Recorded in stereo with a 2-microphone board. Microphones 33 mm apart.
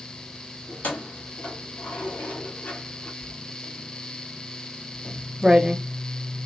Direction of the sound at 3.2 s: 15° right (ahead or behind).